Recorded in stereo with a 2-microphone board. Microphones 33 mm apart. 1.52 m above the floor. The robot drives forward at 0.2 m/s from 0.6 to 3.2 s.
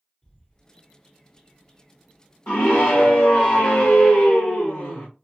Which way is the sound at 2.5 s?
55° left (ahead or behind).